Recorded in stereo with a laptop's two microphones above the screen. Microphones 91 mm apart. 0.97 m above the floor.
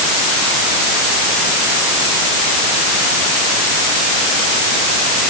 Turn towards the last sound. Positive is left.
No sound to turn to.